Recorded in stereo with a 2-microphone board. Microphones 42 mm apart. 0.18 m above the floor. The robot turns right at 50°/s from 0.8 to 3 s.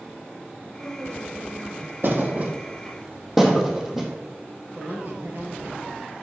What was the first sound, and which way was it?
A woman speaking, 115° right.